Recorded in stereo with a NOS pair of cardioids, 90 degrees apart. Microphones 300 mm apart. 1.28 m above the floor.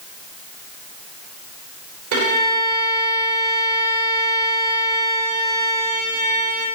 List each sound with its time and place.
2.1 s a violin: 70° right, 3.5 m